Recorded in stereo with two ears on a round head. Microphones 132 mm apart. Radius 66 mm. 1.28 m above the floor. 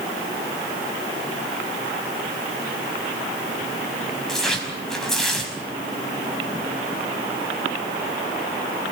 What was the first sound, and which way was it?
Tearing paper, 5° left (ahead or behind).